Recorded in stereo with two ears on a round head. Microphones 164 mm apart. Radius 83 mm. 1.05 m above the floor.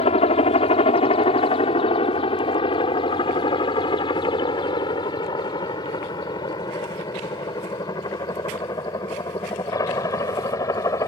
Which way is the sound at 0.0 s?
30° left (ahead or behind).